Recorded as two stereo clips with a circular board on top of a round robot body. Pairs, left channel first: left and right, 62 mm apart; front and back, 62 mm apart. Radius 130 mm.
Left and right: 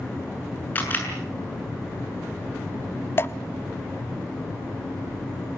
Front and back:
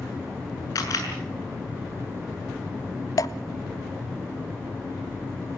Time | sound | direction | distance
0.8 | a camera shutter | 30° left | 6 m
3.2 | dripping | 35° left | 0.5 m